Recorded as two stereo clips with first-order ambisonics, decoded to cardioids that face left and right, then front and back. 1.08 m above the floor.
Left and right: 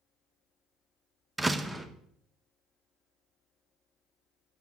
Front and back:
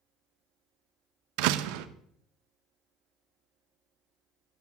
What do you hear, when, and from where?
1.4 s a door slam: 175° right, 0.5 m